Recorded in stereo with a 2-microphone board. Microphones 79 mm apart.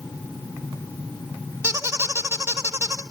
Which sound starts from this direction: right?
A squeak, at 1.6 s.